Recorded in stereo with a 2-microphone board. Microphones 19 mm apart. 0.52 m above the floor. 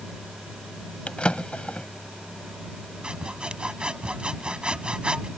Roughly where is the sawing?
Right.